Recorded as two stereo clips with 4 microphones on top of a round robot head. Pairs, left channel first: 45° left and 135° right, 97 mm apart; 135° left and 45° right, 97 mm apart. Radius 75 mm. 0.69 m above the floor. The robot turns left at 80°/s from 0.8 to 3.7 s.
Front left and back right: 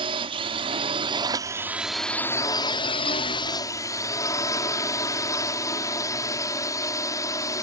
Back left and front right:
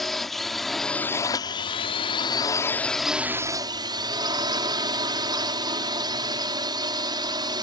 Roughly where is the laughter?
I don't hear laughter.